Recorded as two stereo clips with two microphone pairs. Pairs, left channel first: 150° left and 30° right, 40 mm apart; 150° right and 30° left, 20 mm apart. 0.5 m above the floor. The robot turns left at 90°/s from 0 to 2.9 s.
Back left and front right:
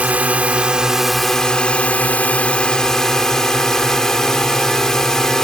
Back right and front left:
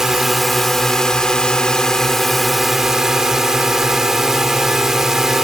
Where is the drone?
20° right; by 5.5 s 80° left.